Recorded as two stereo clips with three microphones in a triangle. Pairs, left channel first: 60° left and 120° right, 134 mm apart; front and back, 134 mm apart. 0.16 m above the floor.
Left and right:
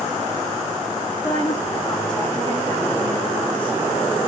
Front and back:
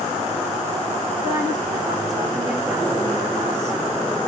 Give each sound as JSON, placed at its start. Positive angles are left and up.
{"t": 1.2, "sound": "a woman speaking", "azimuth_deg": 120, "distance_m": 8.5}